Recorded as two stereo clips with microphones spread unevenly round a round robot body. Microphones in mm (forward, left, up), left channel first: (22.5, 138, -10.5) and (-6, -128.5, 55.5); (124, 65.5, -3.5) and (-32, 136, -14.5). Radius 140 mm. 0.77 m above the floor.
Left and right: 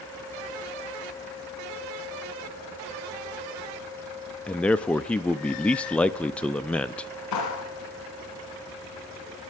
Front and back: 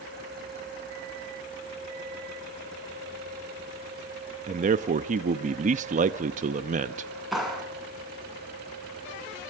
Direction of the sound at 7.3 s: 65° left.